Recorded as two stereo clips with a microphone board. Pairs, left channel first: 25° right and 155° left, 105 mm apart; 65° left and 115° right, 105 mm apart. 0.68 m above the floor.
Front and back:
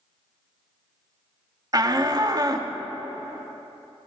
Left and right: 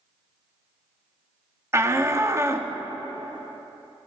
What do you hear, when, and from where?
1.7 s a shout: 165° right, 0.9 m